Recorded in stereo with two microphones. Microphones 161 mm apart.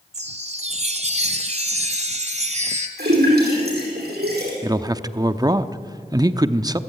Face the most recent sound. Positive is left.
turn(degrees=-25)  # may be behind; listen again after turning